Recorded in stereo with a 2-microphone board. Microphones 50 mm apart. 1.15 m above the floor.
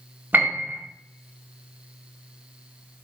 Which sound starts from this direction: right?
A piano, at 0.3 s.